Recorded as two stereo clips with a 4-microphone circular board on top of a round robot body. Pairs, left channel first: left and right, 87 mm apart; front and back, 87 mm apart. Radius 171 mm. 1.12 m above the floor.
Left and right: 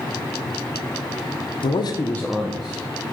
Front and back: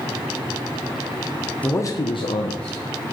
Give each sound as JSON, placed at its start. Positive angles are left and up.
{"t": 1.6, "sound": "a man speaking", "azimuth_deg": 75, "distance_m": 0.7}